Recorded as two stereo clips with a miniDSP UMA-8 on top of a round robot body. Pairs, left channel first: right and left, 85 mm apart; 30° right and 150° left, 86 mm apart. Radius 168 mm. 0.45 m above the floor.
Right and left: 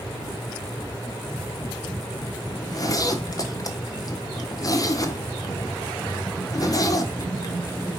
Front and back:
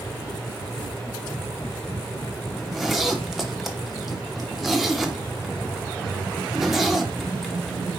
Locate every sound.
2.6 s a zipper: 125° right, 1.4 m